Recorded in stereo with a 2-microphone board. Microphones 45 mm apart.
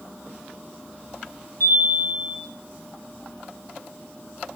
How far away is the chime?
About 7.5 m.